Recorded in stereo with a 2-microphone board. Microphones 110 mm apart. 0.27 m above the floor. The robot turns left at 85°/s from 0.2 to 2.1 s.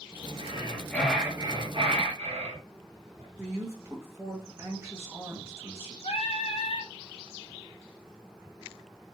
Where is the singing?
65° left (ahead or behind), 0.6 m.